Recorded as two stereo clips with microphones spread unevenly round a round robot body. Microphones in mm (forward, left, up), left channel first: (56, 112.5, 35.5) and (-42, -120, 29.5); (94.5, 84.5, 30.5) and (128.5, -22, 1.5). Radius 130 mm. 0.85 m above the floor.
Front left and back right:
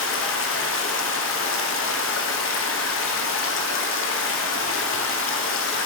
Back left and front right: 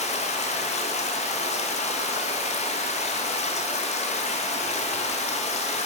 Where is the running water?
90° left, 0.9 m.